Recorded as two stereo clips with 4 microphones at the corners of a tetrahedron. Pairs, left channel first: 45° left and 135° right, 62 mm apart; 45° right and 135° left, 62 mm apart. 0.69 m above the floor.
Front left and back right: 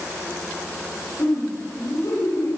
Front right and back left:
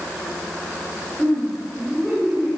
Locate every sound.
1.2 s laughter: 50° left, 9 m; by 2.6 s 55° left, 11 m